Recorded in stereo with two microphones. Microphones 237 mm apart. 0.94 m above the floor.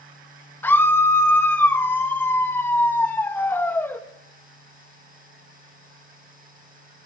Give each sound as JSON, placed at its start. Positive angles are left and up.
{"t": 0.6, "sound": "a scream", "side_deg": 10, "distance_m": 1.2}